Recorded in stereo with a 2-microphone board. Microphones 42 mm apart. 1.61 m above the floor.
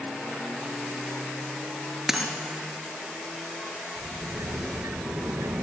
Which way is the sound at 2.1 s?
5° right (ahead or behind).